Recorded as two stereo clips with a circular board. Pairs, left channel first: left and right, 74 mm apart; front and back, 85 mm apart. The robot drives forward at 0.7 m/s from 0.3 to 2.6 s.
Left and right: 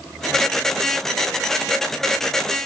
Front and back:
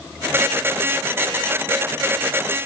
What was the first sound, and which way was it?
Only background noise.